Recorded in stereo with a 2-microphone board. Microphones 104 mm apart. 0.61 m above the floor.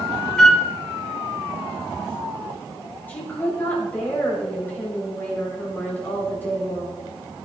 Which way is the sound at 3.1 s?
20° left (ahead or behind).